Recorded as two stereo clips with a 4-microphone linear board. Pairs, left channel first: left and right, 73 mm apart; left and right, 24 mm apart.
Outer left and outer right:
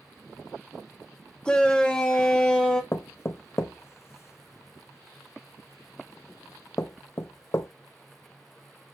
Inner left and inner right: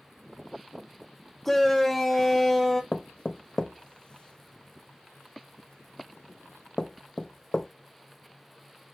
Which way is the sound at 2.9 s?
40° left (ahead or behind).